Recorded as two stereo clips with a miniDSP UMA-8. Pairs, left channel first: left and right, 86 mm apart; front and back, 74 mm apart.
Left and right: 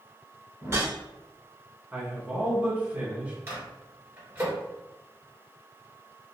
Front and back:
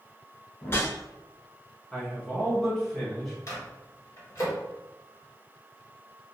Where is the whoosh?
45° right, 0.8 m.